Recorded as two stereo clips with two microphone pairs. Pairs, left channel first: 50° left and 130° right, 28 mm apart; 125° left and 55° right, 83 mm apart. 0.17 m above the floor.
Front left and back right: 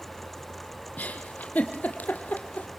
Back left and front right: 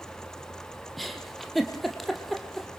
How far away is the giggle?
About 2.5 m.